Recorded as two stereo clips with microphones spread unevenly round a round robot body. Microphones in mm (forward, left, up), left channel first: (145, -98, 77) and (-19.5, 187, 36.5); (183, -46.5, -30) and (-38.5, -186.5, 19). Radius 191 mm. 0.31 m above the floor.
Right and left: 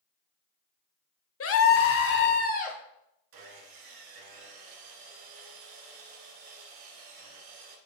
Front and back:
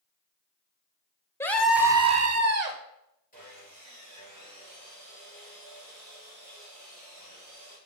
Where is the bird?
I don't hear a bird.